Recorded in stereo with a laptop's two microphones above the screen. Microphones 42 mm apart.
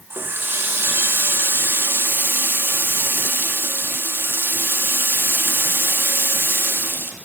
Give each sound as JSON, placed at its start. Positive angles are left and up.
{"t": 0.1, "sound": "a running tap", "side_deg": -65, "distance_m": 1.1}